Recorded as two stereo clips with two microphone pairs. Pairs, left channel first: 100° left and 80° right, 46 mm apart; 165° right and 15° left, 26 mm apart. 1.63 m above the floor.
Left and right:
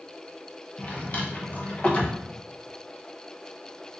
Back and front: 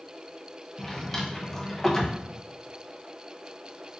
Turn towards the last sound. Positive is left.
turn(degrees=115)